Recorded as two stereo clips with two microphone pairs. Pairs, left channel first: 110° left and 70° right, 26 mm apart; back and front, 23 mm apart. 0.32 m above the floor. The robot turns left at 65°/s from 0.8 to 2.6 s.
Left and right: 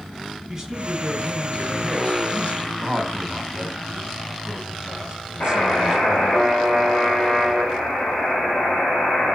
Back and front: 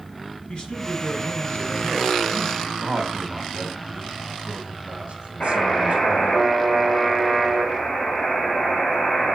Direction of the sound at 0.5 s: 135° right.